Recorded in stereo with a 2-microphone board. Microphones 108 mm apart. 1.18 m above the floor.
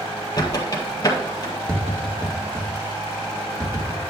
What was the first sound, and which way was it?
A squeak, 35° left (ahead or behind).